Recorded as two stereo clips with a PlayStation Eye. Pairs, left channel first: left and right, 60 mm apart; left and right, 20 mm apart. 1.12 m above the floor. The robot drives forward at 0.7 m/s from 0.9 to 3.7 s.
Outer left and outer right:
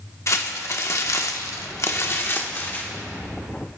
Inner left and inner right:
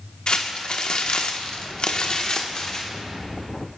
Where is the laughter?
I don't hear laughter.